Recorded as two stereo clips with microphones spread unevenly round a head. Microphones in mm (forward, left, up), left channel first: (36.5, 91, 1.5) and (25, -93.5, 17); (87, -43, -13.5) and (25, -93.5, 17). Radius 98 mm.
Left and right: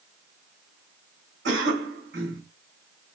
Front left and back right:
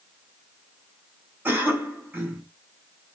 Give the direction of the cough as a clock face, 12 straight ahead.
2 o'clock.